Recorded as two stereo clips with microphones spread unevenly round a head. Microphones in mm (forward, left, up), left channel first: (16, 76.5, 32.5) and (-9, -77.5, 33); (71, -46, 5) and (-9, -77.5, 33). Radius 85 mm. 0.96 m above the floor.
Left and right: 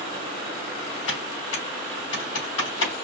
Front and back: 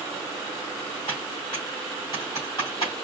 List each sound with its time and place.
1.1 s typing on a keyboard: 90° left, 2.5 m